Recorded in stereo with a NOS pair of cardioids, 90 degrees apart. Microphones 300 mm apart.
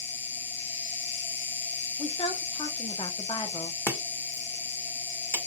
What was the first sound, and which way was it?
An insect, 40° left.